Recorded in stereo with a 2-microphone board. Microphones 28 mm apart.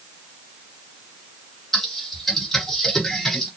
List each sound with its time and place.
1.7 s typing on a keyboard: 10° left (ahead or behind), 2 m